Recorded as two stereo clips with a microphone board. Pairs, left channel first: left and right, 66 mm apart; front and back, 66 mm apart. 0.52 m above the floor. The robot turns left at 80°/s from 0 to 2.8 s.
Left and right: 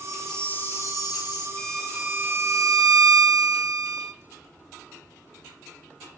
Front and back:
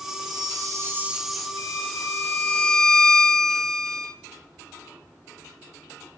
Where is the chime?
170° right, 2 m; by 1.5 s 80° left, 2 m.